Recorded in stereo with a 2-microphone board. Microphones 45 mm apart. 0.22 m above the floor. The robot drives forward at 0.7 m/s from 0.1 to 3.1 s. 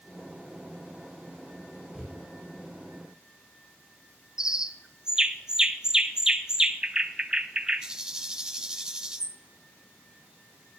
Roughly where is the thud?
Centre.